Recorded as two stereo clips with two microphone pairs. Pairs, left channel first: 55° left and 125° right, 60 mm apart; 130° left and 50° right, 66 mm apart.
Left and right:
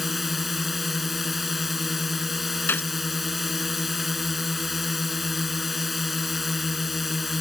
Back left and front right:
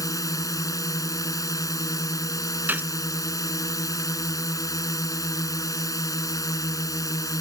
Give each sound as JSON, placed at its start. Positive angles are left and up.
{"t": 0.0, "sound": "a drone", "azimuth_deg": 150}
{"t": 2.7, "sound": "a gunshot", "azimuth_deg": 5}